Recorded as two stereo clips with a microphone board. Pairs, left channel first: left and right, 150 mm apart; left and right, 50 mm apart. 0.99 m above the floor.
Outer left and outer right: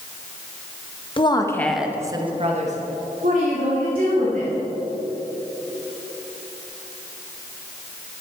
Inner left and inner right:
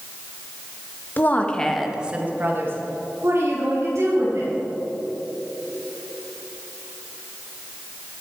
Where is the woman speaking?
35° left (ahead or behind), 1.3 m; by 4.5 s 75° right (ahead or behind), 3.5 m.